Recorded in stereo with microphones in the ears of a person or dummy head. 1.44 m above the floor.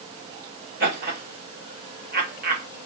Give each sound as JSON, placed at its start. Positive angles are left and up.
{"t": 0.8, "sound": "laughter", "side_deg": -45, "distance_m": 1.6}